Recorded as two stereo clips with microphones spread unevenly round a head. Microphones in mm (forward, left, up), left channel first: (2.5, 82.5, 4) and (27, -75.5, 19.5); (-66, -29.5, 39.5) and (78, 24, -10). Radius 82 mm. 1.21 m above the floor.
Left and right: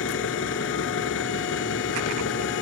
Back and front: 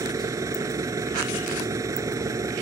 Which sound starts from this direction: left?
An engine running, at 0.0 s.